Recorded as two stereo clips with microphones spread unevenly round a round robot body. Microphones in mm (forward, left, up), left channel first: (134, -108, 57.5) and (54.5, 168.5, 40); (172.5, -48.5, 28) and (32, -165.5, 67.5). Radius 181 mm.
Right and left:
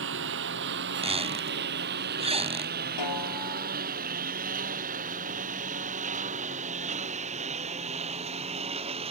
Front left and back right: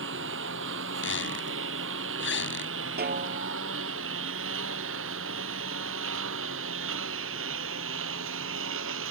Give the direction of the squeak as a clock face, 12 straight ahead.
11 o'clock.